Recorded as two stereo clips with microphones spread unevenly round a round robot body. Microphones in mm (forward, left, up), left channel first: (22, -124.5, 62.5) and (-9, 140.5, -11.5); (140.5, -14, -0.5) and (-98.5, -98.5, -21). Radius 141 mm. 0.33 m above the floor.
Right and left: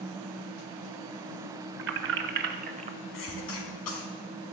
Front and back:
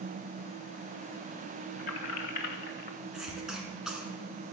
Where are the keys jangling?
80° left, 1.9 m; by 3.0 s 60° left, 1.1 m.